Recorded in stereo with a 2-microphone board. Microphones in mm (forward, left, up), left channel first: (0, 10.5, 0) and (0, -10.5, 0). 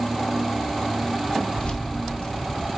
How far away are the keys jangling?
About 1.0 m.